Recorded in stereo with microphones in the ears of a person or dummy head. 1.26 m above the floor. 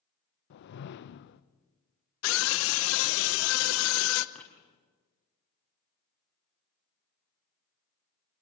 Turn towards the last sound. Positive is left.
turn(degrees=5)  # may be behind; listen again after turning